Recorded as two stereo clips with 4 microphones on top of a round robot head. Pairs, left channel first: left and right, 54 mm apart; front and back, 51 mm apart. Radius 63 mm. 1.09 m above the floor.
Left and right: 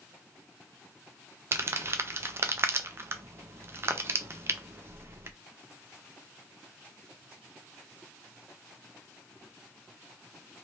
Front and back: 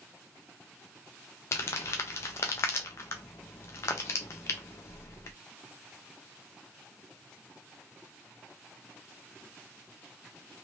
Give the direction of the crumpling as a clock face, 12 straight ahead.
1 o'clock.